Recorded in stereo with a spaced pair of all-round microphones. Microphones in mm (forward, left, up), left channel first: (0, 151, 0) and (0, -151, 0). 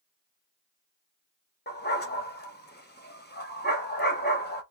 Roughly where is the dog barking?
Left.